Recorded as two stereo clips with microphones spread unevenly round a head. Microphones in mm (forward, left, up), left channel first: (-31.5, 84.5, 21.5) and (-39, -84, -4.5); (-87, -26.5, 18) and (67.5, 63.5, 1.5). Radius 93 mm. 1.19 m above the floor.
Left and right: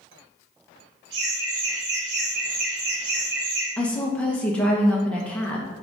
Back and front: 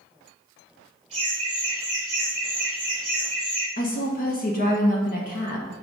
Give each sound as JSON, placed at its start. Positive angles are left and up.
{"t": 1.1, "sound": "laughter", "azimuth_deg": -30, "distance_m": 4.0}
{"t": 3.8, "sound": "a woman speaking", "azimuth_deg": 175, "distance_m": 1.2}